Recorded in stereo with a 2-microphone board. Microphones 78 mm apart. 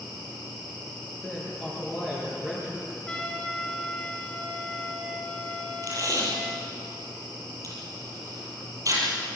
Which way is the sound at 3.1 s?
10° left (ahead or behind).